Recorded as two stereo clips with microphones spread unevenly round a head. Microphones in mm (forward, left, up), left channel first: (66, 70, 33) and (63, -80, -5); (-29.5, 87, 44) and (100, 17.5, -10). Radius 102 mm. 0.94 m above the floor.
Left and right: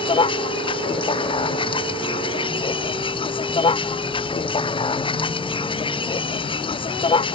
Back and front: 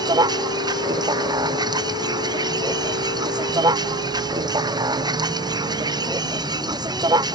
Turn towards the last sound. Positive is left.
turn(degrees=35)